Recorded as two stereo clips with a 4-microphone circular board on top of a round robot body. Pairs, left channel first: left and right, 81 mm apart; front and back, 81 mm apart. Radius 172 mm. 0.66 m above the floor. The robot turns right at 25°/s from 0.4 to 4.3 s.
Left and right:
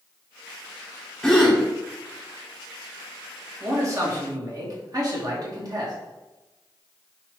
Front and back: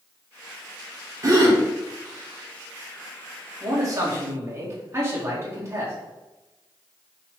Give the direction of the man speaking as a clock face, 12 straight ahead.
5 o'clock.